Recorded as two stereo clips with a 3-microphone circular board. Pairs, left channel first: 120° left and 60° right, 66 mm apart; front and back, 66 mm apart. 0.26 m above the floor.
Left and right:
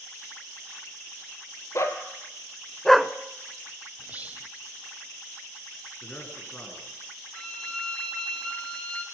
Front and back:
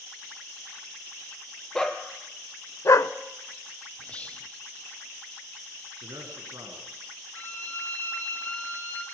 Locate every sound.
1.8 s a dog barking: 80° left, 1.7 m; by 3.1 s 15° left, 0.6 m
4.0 s whispering: 40° right, 1.1 m
6.0 s a man speaking: straight behind, 3.5 m
7.3 s a violin: 50° left, 2 m